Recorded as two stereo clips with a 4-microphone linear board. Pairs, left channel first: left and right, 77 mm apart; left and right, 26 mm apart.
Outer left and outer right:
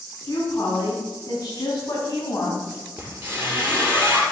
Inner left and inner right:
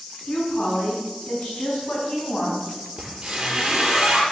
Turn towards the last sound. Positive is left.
turn(degrees=-25)  # may be behind; listen again after turning